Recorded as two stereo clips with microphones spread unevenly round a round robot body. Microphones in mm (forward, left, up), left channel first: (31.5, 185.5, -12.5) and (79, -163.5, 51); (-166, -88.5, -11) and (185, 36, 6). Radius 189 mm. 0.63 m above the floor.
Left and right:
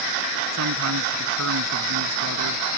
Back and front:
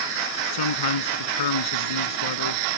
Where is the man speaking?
135° right.